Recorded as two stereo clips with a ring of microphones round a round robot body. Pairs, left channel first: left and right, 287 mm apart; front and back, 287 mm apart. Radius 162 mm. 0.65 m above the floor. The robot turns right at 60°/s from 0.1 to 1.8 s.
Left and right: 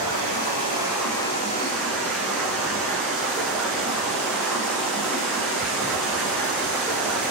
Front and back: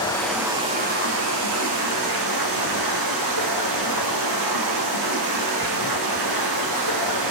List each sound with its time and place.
0.0 s running water: 75° left, 10 m; by 7.3 s straight behind, 10 m